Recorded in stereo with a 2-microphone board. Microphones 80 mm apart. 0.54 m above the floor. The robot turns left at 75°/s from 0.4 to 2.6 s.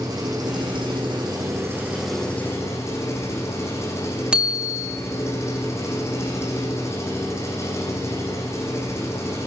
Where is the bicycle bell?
15° right (ahead or behind), 3 m.